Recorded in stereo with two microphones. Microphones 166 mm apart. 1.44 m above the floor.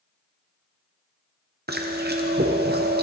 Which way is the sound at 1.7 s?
75° right (ahead or behind).